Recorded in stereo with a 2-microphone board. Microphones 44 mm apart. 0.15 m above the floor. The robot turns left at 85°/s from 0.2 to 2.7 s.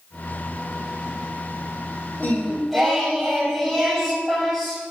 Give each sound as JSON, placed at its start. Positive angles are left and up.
{"t": 2.2, "sound": "singing", "azimuth_deg": 40, "distance_m": 3.0}